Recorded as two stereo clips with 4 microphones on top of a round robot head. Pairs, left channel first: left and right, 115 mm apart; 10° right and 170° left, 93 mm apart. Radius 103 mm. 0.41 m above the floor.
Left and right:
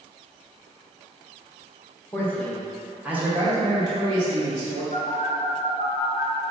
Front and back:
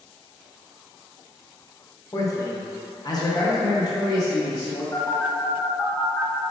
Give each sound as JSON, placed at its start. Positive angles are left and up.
{"t": 2.1, "sound": "a man speaking", "azimuth_deg": 30, "distance_m": 1.0}
{"t": 4.9, "sound": "a phone buzzing", "azimuth_deg": 60, "distance_m": 1.0}